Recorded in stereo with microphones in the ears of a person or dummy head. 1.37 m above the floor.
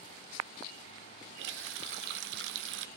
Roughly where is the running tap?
Right.